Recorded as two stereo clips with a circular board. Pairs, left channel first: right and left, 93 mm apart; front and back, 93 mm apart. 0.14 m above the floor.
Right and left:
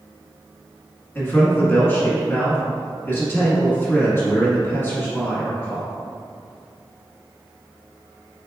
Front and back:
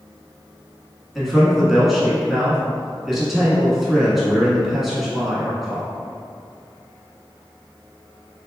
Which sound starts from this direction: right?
A man speaking, at 1.1 s.